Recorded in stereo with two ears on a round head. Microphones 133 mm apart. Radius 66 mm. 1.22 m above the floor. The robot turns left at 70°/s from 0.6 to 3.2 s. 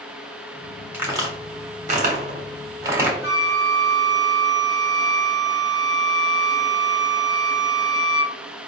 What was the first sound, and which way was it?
A crack, 10° right (ahead or behind).